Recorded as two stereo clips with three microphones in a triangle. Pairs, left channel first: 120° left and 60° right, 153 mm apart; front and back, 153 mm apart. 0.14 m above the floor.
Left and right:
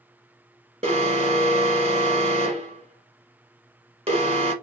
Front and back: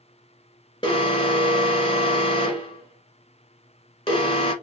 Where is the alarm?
35° right, 1.7 m.